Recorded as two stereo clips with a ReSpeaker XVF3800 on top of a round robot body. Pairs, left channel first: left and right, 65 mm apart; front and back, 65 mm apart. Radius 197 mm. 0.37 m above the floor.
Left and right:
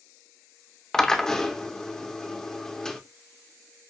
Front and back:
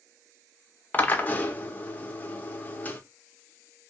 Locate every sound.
0.9 s a drill: 15° left, 0.8 m